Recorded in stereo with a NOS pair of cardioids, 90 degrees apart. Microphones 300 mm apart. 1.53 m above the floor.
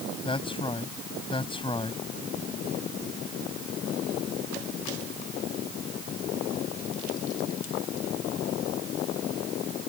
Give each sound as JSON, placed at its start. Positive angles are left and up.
{"t": 0.2, "sound": "a man speaking", "azimuth_deg": 15}